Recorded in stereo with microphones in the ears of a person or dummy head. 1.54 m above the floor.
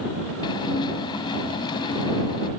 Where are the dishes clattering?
25° left (ahead or behind).